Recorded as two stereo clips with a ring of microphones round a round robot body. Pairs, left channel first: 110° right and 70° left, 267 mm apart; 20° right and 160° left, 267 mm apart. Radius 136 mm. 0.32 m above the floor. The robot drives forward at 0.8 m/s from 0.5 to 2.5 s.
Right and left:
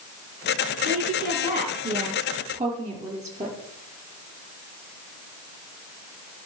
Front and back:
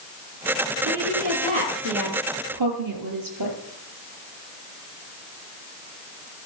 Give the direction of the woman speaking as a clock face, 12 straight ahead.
8 o'clock.